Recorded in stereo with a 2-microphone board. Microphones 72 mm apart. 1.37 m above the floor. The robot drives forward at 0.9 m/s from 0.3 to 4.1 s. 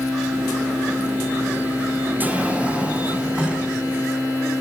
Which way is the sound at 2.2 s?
20° right (ahead or behind).